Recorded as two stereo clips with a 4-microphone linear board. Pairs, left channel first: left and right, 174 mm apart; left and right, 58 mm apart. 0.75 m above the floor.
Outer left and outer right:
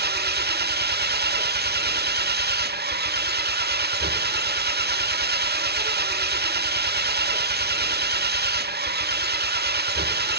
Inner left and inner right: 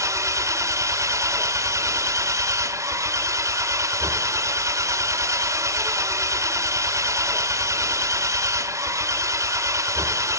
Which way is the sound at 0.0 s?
80° right.